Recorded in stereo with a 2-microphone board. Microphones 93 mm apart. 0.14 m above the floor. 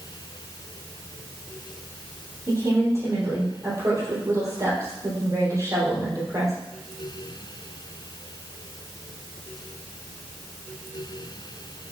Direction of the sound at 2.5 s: 35° right (ahead or behind).